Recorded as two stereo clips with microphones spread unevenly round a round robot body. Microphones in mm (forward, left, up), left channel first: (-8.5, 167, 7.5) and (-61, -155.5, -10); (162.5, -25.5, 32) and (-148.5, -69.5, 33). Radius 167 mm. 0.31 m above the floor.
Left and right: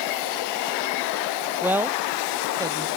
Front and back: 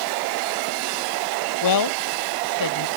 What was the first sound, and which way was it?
A woman speaking, 15° right.